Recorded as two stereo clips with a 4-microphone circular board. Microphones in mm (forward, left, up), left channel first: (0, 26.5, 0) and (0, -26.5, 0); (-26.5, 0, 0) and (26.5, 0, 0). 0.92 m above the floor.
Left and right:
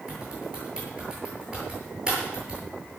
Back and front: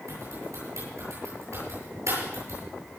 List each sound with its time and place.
0.1 s typing on a keyboard: 15° right, 10 m